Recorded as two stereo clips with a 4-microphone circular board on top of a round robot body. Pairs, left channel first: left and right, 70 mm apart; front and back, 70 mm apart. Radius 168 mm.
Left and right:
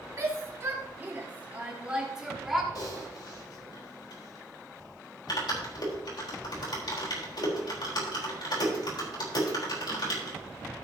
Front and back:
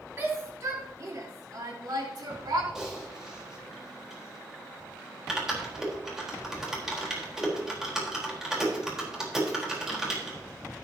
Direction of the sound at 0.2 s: 130° right.